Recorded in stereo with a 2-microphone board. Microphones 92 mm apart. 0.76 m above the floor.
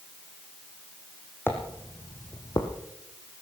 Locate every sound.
1.5 s footsteps: 20° left (ahead or behind), 2.5 m; by 2.7 s 55° left (ahead or behind), 2 m